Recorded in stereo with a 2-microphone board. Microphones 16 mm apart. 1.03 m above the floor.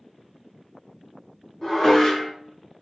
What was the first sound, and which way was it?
Dishes clattering, 30° left (ahead or behind).